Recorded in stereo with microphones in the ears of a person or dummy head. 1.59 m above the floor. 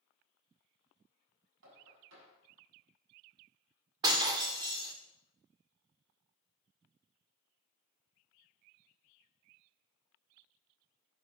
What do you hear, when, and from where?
1.6 s knocking: 70° right (ahead or behind), 7.5 m
4.0 s breaking glass: 25° right (ahead or behind), 2.0 m